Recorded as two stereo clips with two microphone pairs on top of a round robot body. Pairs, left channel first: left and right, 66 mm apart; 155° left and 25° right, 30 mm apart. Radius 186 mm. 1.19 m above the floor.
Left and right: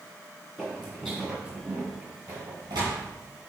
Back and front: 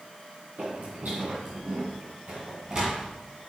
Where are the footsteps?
5° left, 2.5 m; by 3.0 s 110° right, 1.5 m.